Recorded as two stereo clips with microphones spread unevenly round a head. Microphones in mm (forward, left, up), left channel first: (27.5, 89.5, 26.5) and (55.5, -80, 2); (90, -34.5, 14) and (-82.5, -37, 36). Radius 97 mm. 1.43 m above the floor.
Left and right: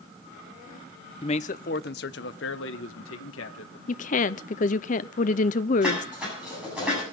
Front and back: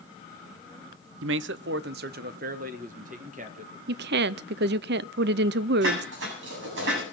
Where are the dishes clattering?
165° right, 8 m.